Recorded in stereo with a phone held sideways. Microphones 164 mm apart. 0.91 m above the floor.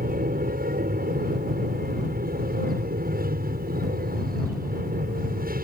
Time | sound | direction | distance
0.0 | an aircraft | 65° right (ahead or behind) | ?